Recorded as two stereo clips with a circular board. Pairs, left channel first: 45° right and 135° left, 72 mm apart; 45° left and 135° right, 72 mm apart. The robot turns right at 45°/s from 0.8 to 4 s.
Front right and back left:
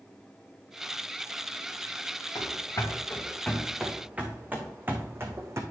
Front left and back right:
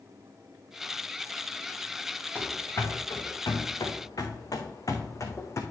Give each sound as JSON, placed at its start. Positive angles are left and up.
{"t": 2.4, "sound": "running footsteps", "azimuth_deg": -25, "distance_m": 2.5}